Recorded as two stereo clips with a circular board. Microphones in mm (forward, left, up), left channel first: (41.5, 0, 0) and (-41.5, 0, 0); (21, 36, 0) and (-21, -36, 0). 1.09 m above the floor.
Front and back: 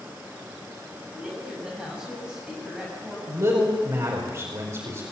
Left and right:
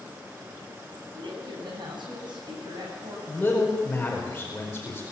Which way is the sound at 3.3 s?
135° left.